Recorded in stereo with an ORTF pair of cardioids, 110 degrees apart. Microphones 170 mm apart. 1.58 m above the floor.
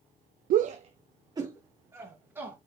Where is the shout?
55° right, 0.6 m; by 2.6 s 10° right, 2.5 m.